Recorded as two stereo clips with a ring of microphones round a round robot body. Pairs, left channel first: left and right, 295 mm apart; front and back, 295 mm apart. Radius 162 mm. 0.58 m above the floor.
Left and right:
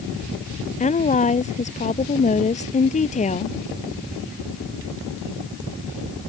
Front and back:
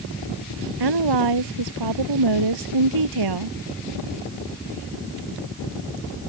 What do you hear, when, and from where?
0.8 s a woman speaking: 155° left